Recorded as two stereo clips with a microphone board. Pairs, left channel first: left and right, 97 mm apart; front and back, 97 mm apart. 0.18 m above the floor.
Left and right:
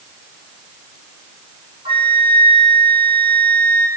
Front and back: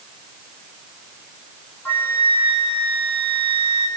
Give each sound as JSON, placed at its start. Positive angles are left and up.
{"t": 1.9, "sound": "a flute", "azimuth_deg": -70, "distance_m": 6.0}